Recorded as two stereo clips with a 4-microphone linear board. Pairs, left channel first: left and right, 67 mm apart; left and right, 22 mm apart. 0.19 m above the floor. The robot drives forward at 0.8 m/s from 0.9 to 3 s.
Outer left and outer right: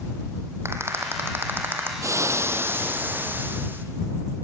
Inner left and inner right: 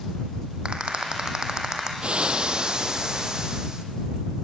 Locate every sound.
0.7 s a rattle: 40° right (ahead or behind), 2.5 m; by 1.9 s 30° right (ahead or behind), 3 m
2.0 s frying: 50° right (ahead or behind), 1.1 m; by 3.9 s 30° right (ahead or behind), 1.7 m